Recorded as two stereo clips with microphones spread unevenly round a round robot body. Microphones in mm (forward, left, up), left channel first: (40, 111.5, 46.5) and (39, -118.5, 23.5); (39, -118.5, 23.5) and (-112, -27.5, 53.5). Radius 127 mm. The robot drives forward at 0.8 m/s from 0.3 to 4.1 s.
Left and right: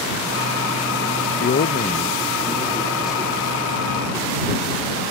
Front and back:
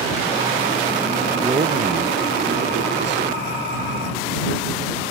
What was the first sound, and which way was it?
A man speaking, 65° left.